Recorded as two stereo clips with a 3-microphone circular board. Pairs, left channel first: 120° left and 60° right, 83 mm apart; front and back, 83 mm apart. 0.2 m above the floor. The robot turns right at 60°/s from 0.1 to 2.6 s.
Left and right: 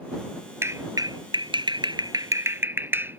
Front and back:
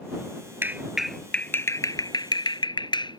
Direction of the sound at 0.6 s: 115° right.